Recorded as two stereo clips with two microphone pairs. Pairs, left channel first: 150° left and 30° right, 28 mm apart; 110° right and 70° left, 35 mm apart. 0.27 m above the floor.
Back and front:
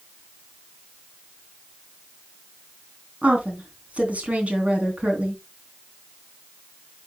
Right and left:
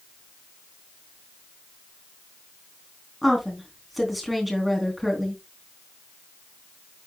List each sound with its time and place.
3.2 s a woman speaking: 20° right, 3 m